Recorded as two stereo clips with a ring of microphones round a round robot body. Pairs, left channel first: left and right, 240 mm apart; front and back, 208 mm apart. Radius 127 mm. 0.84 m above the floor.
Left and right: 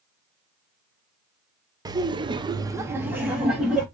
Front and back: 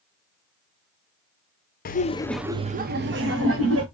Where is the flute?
I don't hear a flute.